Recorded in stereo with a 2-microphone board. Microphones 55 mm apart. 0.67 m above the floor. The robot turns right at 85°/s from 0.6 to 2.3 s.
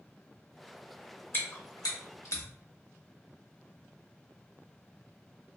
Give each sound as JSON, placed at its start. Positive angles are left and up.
{"t": 1.3, "sound": "chewing", "side_deg": 40, "distance_m": 0.8}